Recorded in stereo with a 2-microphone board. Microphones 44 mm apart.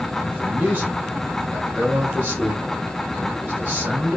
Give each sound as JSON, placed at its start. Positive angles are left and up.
{"t": 0.2, "sound": "a man speaking", "side_deg": -40, "distance_m": 3.0}